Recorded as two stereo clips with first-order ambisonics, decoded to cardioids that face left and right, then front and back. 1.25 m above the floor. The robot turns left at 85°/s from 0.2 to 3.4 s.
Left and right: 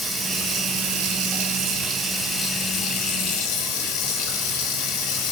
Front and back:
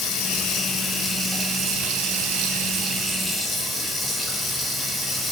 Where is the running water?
5° right, 1.3 m; by 5.3 s 85° left, 1.3 m.